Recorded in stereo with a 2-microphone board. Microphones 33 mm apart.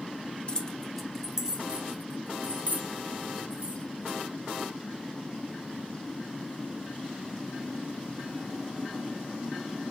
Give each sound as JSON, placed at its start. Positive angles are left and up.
{"t": 0.5, "sound": "keys jangling", "side_deg": 30, "distance_m": 0.5}